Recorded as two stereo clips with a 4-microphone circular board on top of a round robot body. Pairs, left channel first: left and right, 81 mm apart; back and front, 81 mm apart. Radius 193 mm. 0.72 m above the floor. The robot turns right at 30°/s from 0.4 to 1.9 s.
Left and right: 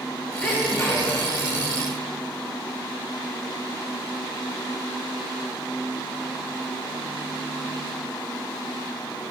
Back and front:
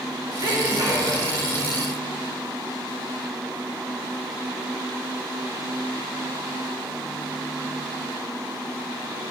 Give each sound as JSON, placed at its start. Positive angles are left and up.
{"t": 0.4, "sound": "a sneeze", "azimuth_deg": 15, "distance_m": 1.8}